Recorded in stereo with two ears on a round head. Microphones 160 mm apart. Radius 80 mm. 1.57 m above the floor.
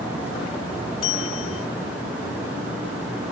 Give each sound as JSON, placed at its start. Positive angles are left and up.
{"t": 1.0, "sound": "a bell", "side_deg": 85}